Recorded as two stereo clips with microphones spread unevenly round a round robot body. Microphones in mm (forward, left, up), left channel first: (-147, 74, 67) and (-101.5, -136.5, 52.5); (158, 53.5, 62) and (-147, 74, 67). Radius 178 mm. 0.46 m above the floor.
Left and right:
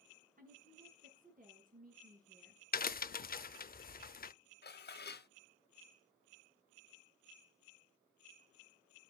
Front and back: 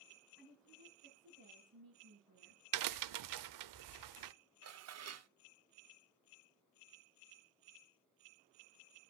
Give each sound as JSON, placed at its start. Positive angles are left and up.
{"t": 0.4, "sound": "a woman speaking", "azimuth_deg": -130, "distance_m": 5.0}
{"t": 2.7, "sound": "a crack", "azimuth_deg": 155, "distance_m": 0.7}
{"t": 4.6, "sound": "dishes clattering", "azimuth_deg": 145, "distance_m": 1.0}